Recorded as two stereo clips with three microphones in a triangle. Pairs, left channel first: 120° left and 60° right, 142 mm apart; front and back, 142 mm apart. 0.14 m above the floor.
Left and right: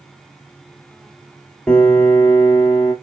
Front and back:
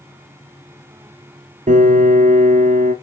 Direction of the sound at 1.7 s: 155° right.